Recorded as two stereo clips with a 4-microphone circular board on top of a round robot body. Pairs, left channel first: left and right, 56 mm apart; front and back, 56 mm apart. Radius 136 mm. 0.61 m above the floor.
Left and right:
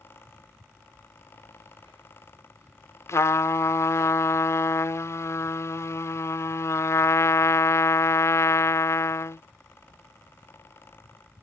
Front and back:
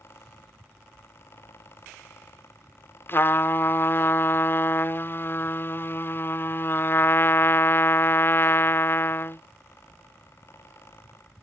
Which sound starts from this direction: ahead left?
A trumpet, at 3.1 s.